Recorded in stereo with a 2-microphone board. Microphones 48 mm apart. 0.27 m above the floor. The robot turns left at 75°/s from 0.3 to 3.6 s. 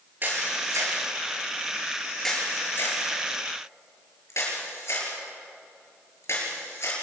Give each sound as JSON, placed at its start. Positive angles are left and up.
{"t": 0.2, "sound": "a camera shutter", "side_deg": -45, "distance_m": 6.5}